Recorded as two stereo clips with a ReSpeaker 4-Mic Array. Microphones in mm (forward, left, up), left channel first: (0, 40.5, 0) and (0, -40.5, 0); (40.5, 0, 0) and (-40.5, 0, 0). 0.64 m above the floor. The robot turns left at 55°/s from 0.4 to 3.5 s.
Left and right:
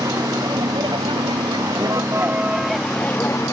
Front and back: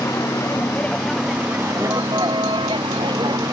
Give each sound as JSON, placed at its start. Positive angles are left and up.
{"t": 0.0, "sound": "a vehicle", "azimuth_deg": -50}